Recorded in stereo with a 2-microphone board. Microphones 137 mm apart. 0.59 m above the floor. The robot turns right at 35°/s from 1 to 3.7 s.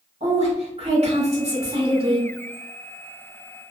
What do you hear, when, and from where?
0.2 s a woman speaking: 95° right, 1.5 m; by 2.3 s 50° right, 1.5 m